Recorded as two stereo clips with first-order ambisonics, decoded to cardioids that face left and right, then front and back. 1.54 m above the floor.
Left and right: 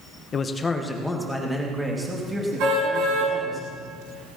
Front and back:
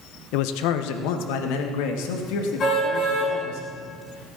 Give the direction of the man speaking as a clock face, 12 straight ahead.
11 o'clock.